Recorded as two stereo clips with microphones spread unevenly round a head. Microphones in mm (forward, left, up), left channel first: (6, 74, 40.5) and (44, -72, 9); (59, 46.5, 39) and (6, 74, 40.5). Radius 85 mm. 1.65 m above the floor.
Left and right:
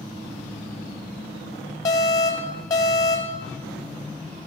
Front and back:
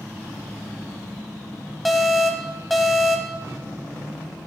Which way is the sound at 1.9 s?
60° left.